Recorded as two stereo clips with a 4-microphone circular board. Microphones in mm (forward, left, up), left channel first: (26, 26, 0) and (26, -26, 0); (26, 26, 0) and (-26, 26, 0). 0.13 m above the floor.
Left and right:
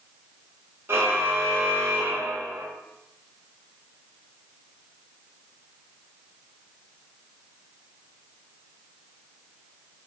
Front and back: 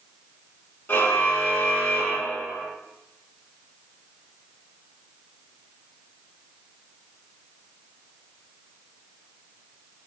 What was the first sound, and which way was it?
A car horn, 45° right.